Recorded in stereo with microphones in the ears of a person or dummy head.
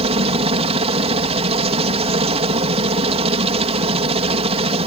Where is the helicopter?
35° right (ahead or behind).